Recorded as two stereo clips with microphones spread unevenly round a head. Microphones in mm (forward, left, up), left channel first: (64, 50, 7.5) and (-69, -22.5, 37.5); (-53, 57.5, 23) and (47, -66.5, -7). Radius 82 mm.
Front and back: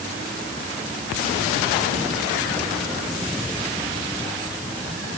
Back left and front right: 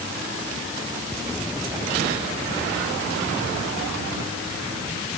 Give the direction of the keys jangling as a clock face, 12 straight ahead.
I don't hear keys jangling.